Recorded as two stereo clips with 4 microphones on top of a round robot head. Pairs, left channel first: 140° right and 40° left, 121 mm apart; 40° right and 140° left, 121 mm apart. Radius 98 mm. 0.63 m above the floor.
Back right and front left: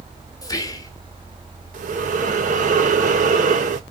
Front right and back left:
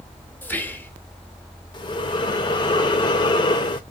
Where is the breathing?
15° left, 0.7 m.